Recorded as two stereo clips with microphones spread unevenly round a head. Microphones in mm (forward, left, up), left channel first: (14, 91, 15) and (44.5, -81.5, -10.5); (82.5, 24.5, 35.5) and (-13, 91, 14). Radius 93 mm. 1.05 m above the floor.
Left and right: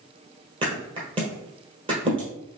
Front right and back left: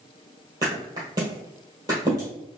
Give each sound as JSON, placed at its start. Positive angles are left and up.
{"t": 0.6, "sound": "a thud", "azimuth_deg": -140, "distance_m": 1.4}